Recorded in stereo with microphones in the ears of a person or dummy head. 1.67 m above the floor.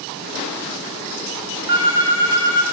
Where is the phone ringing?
20° right (ahead or behind), 2.5 m.